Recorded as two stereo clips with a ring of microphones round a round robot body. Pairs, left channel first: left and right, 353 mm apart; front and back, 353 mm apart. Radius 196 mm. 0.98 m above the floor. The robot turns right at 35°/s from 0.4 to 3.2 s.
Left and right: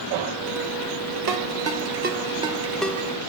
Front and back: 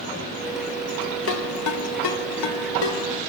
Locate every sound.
1.3 s a ringtone: 55° right, 3 m; by 3.0 s 10° left, 3 m